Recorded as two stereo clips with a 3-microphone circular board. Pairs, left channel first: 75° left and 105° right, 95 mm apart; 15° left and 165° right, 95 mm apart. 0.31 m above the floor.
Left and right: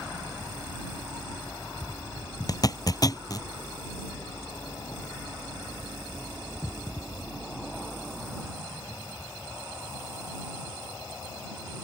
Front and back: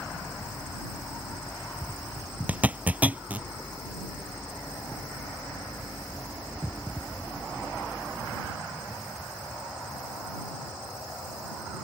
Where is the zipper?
120° left.